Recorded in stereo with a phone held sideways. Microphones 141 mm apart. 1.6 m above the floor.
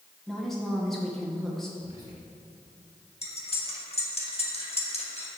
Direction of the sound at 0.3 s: Centre (ahead or behind).